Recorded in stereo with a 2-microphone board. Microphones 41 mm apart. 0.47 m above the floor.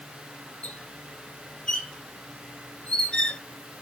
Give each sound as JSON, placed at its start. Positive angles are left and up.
{"t": 0.6, "sound": "a squeak", "side_deg": 25, "distance_m": 0.8}